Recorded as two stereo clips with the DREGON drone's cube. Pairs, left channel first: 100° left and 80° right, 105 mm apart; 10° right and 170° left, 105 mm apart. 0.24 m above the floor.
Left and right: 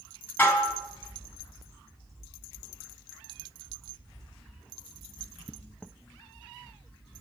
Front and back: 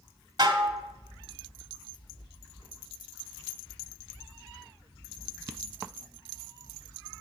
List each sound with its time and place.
0.4 s dishes clattering: 155° left, 0.8 m